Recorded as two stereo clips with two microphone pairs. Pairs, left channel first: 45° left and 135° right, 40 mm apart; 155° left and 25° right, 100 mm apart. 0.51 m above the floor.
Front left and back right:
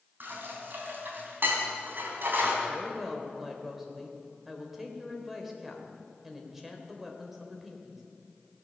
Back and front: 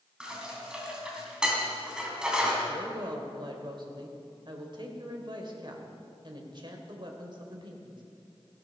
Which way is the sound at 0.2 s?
105° right.